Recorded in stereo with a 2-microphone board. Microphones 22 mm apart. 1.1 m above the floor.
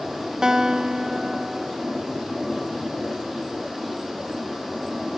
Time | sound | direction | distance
0.4 | a guitar | 35° right (ahead or behind) | 0.9 m